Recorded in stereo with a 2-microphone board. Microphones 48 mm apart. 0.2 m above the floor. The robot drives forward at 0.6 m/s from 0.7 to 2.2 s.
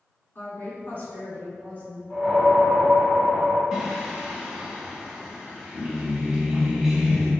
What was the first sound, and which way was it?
A woman speaking, 45° left (ahead or behind).